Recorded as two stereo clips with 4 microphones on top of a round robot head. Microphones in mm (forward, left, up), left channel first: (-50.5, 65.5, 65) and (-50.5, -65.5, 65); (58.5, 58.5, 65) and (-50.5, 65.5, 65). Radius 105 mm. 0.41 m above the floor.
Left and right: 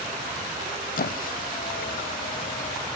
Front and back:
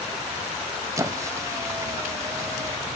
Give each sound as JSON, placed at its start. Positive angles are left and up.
{"t": 1.0, "sound": "a squeak", "azimuth_deg": 110, "distance_m": 0.6}